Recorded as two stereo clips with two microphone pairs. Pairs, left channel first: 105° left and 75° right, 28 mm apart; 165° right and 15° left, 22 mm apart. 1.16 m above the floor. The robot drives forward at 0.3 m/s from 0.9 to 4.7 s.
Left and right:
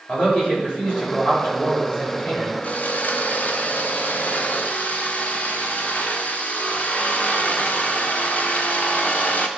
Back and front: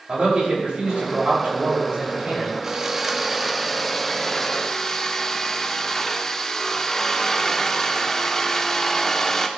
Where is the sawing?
85° left, 0.8 m; by 9.5 s 130° left, 1.0 m.